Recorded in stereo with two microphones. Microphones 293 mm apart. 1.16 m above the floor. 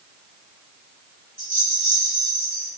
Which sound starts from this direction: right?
A rattle, at 1.4 s.